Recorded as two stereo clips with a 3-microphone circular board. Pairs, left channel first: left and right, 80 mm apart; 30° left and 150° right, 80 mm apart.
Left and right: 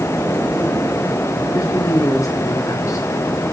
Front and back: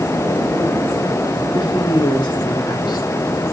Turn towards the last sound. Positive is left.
turn(degrees=45)